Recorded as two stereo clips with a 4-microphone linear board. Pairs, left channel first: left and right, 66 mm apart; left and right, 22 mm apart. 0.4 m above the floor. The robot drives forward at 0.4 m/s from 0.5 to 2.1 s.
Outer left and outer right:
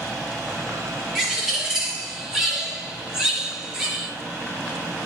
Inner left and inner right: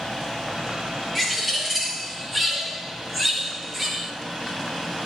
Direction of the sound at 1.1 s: 5° right (ahead or behind).